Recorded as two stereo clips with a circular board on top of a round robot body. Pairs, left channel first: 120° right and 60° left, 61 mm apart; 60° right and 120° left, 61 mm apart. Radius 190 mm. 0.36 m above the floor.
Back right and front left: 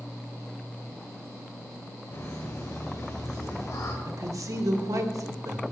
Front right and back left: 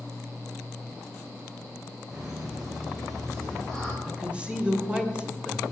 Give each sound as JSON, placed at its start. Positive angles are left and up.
{"t": 2.1, "sound": "laughter", "azimuth_deg": -160, "distance_m": 3.5}
{"t": 4.0, "sound": "a woman speaking", "azimuth_deg": 50, "distance_m": 2.0}